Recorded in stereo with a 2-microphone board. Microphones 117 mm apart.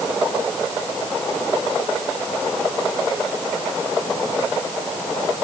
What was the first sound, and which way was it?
Only background noise.